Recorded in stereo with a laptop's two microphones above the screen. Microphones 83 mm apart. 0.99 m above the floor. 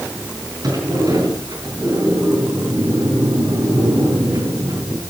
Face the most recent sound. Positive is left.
turn(degrees=-55)  # may be behind; listen again after turning